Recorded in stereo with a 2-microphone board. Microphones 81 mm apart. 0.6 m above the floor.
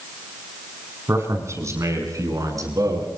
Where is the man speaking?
35° right (ahead or behind), 6 m; by 3.1 s 45° right (ahead or behind), 7.5 m.